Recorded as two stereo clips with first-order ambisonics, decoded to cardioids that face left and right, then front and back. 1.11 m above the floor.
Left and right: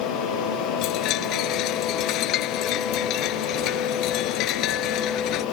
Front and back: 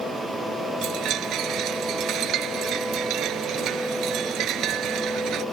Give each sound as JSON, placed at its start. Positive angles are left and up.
{"t": 0.8, "sound": "a chime", "azimuth_deg": 130}